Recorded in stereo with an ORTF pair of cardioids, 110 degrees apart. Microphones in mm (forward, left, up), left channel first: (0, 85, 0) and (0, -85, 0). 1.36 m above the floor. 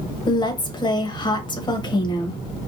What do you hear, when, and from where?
0.3 s a woman speaking: 25° left, 0.9 m